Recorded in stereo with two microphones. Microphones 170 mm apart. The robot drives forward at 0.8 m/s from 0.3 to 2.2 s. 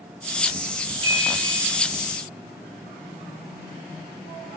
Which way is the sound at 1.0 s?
30° right (ahead or behind).